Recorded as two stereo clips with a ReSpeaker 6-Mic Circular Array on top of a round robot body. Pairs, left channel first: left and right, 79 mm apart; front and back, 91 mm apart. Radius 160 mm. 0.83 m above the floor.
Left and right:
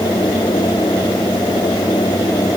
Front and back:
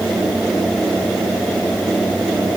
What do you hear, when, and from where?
Only background noise.